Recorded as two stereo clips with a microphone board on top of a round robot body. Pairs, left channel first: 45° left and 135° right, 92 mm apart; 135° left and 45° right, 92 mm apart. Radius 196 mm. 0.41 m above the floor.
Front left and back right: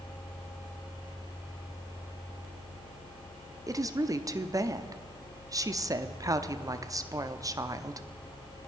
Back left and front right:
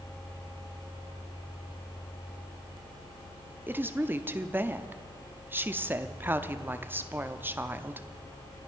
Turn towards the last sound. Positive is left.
turn(degrees=-105)